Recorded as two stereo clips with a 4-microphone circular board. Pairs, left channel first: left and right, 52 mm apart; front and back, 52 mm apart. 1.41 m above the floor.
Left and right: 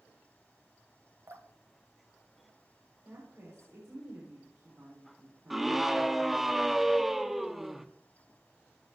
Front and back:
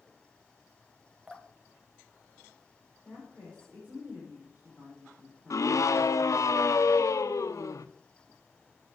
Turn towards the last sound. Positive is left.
turn(degrees=-5)